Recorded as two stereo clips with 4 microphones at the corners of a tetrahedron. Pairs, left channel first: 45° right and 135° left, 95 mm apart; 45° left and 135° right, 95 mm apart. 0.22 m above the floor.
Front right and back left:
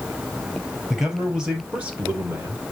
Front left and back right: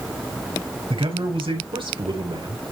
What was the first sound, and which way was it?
A man speaking, 140° right.